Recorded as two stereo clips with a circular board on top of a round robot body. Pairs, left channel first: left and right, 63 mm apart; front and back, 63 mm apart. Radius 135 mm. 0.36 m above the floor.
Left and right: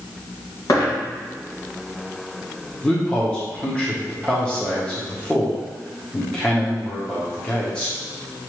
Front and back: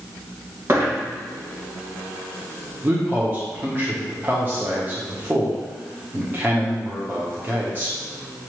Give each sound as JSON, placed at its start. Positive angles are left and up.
{"t": 0.7, "sound": "a dropped coin", "azimuth_deg": 125, "distance_m": 2.0}
{"t": 2.8, "sound": "a man speaking", "azimuth_deg": 155, "distance_m": 1.2}